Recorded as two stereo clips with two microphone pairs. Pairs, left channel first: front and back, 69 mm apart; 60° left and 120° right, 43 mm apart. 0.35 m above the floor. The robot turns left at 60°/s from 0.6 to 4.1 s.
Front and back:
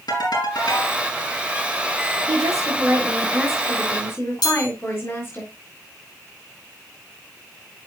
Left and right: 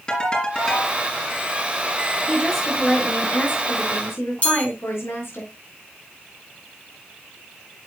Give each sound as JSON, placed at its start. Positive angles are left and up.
{"t": 0.1, "sound": "a ringtone", "azimuth_deg": -10, "distance_m": 4.5}
{"t": 2.3, "sound": "a woman speaking", "azimuth_deg": 165, "distance_m": 6.0}
{"t": 4.4, "sound": "a chime", "azimuth_deg": 5, "distance_m": 4.5}